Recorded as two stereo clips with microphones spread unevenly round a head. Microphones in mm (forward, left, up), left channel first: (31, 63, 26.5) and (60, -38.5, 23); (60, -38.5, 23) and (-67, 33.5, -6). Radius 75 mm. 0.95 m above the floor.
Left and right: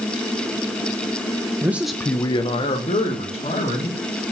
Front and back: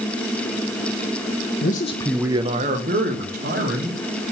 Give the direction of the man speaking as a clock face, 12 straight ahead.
12 o'clock.